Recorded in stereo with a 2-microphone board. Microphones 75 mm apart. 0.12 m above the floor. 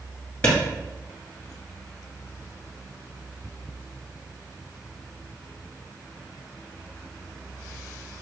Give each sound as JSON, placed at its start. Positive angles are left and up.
{"t": 0.4, "sound": "a clap", "side_deg": 20, "distance_m": 1.8}